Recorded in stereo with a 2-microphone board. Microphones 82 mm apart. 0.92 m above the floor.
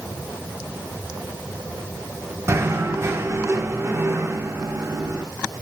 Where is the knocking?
40° right (ahead or behind), 1.6 m.